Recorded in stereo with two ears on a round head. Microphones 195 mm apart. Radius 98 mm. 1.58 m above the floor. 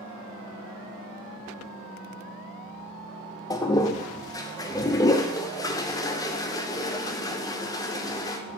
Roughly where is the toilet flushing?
Centre.